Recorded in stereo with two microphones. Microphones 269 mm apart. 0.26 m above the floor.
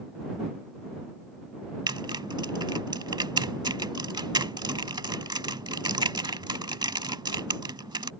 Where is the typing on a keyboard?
15° right (ahead or behind).